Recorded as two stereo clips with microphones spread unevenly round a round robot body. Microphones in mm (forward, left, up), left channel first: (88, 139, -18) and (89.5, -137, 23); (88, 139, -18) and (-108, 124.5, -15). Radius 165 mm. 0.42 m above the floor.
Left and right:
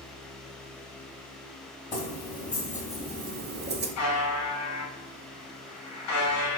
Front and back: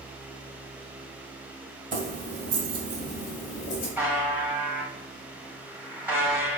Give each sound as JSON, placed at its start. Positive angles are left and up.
{"t": 1.9, "sound": "keys jangling", "azimuth_deg": 165, "distance_m": 1.7}
{"t": 4.0, "sound": "a buzzer", "azimuth_deg": 105, "distance_m": 2.0}